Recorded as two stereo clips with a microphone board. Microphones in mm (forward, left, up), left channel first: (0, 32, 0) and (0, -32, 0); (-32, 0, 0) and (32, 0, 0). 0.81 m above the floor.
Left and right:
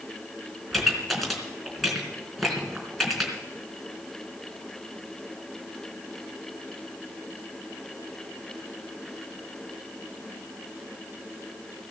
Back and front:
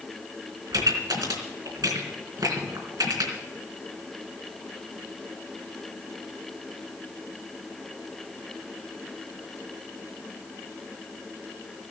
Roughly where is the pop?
Ahead.